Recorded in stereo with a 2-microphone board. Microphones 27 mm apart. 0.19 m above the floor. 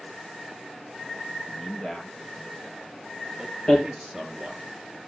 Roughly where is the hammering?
Left.